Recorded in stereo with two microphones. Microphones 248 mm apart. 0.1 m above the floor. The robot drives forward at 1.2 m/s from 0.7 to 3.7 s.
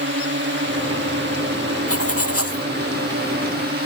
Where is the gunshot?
No gunshot in this recording.